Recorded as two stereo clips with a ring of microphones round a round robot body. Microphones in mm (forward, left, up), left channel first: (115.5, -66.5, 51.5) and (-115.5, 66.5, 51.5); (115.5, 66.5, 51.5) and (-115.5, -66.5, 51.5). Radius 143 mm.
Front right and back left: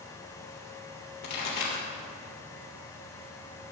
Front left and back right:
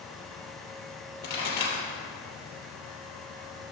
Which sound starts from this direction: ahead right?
A pop, at 1.2 s.